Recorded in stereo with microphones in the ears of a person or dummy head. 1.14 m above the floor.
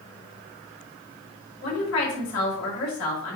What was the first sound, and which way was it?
A woman speaking, 75° left (ahead or behind).